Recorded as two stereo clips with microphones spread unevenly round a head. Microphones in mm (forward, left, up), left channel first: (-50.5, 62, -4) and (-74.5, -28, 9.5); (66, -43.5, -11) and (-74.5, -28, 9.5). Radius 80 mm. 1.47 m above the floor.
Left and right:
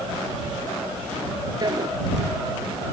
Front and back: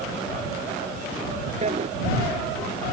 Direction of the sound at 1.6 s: 145° right.